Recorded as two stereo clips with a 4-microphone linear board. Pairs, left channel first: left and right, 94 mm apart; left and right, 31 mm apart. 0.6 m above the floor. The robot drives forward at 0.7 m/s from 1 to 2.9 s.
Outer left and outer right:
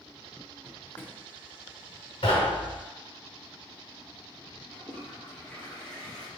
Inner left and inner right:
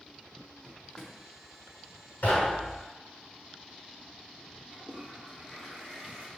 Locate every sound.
0.6 s a drawer: 20° left (ahead or behind), 0.7 m; by 1.2 s 15° left (ahead or behind), 0.8 m
2.2 s knocking: 75° left (ahead or behind), 1.7 m; by 2.8 s 65° left (ahead or behind), 1.8 m
4.7 s a toilet flushing: 10° left (ahead or behind), 1.8 m